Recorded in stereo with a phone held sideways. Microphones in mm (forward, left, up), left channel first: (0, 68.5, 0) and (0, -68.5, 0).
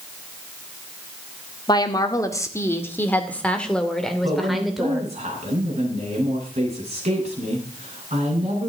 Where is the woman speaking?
30° left (ahead or behind), 1.9 m; by 5.1 s 5° right (ahead or behind), 3 m.